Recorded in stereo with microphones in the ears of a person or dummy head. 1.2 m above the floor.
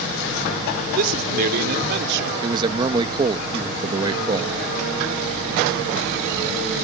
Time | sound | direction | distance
0.9 | a man speaking | 50° right (ahead or behind) | ?
2.4 | a man speaking | 20° right (ahead or behind) | ?